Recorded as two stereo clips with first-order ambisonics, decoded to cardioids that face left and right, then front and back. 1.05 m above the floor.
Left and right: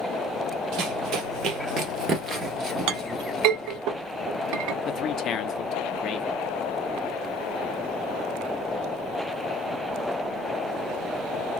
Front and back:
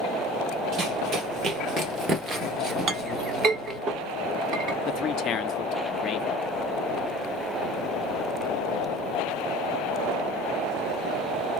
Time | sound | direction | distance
0.7 | running footsteps | 125° right | 1.8 m
2.9 | a clink | 120° right | 0.9 m
4.9 | a man speaking | 50° left | 0.6 m